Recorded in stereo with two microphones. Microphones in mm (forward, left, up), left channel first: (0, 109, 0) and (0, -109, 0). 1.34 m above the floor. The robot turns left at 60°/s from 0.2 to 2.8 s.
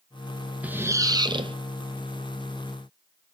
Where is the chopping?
I don't hear chopping.